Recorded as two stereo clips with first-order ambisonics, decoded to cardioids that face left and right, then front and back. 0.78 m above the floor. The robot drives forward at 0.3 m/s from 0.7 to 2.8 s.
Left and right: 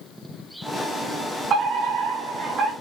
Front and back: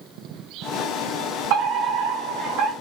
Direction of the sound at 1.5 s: 150° right.